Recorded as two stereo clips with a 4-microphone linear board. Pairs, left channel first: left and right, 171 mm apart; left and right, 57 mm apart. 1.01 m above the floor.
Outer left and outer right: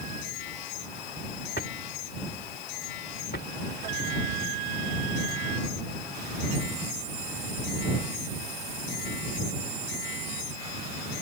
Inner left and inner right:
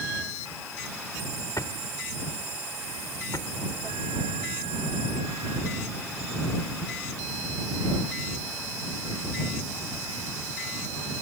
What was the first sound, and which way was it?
A drawer, 80° left.